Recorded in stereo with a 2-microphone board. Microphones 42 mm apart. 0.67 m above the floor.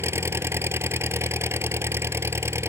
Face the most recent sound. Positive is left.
turn(degrees=-85)